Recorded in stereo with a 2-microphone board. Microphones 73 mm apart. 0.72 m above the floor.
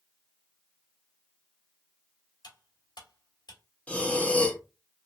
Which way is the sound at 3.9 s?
15° left (ahead or behind).